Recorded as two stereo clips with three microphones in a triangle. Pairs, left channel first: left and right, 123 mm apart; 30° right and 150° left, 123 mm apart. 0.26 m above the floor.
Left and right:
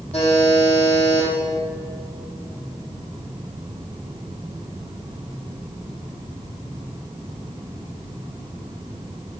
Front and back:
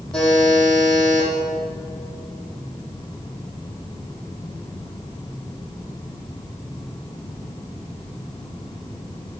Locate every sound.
0.1 s a buzzer: 55° left, 7.5 m